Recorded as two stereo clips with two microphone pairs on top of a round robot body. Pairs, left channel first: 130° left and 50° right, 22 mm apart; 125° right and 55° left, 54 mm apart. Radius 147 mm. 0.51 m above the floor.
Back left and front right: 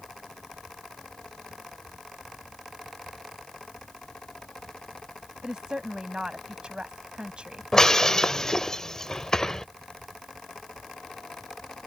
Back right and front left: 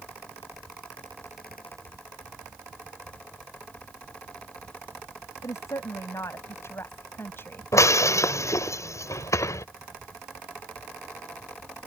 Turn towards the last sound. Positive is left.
turn(degrees=-155)